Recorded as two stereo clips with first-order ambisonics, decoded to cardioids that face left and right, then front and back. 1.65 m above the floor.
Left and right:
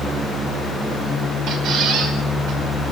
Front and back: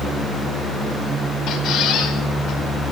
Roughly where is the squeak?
Ahead right.